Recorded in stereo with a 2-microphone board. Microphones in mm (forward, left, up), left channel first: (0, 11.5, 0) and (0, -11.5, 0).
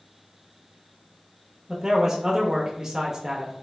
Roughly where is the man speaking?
Right.